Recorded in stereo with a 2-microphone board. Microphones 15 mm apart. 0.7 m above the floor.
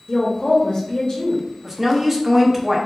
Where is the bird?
No bird in this recording.